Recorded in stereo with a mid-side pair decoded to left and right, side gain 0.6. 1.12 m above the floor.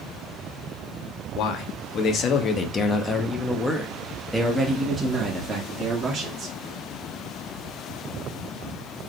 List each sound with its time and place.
1.4 s a man speaking: 60° left, 1.6 m; by 6.6 s 40° right, 2 m